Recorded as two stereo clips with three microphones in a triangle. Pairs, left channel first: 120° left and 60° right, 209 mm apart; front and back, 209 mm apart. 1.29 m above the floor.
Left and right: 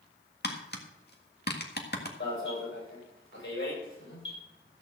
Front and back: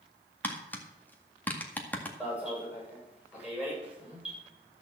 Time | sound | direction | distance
0.4 | tapping | 80° left | 1.8 m
2.2 | an alarm | 95° left | 7 m